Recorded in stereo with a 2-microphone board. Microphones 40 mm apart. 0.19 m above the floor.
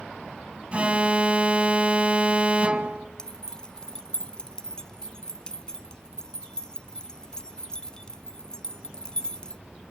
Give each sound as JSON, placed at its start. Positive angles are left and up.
{"t": 0.7, "sound": "an alarm", "side_deg": -30, "distance_m": 0.9}
{"t": 3.2, "sound": "keys jangling", "side_deg": 20, "distance_m": 0.8}